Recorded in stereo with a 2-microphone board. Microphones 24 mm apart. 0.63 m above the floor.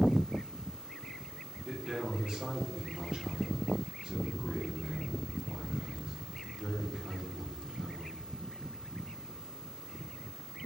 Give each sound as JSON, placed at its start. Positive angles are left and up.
{"t": 1.6, "sound": "a man speaking", "side_deg": -40, "distance_m": 1.2}